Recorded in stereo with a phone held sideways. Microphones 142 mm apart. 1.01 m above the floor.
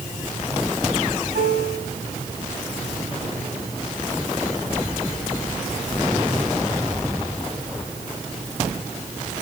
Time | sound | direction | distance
1.3 | a piano | 75° right (ahead or behind) | 6.5 m